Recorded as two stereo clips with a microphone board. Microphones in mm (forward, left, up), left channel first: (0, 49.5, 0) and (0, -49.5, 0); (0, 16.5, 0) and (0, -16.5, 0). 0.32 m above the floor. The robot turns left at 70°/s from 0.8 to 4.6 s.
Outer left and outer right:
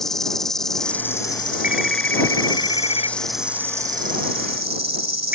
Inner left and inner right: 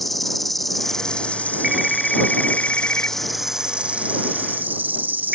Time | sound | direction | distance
0.0 | an insect | 175° left | ?
1.6 | a phone ringing | 165° right | ?